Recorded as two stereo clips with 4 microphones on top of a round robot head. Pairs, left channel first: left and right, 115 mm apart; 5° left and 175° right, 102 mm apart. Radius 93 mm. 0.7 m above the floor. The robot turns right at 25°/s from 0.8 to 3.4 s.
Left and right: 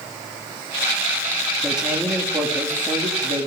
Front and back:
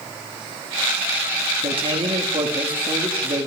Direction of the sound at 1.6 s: 175° right.